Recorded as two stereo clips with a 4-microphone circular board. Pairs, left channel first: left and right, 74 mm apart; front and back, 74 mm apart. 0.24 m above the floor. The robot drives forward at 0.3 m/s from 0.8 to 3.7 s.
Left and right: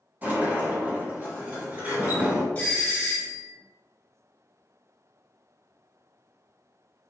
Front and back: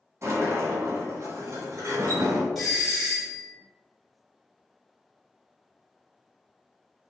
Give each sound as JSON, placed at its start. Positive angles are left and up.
{"t": 0.2, "sound": "a sliding door", "azimuth_deg": -145, "distance_m": 1.2}
{"t": 2.5, "sound": "a doorbell", "azimuth_deg": 90, "distance_m": 1.4}